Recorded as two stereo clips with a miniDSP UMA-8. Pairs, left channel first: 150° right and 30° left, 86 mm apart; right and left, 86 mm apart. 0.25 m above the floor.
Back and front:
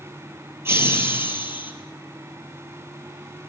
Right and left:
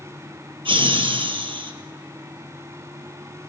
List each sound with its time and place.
0.7 s laughter: 90° left, 5 m; by 1.7 s 100° left, 5.5 m